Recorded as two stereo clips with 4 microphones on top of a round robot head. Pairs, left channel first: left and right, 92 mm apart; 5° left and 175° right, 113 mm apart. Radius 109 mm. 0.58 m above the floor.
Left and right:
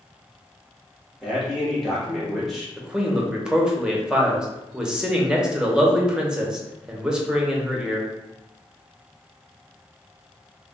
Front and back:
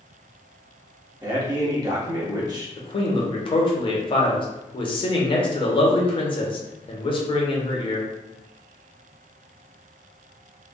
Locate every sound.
1.2 s a man speaking: 175° right, 1.2 m
2.8 s a man speaking: 10° right, 0.9 m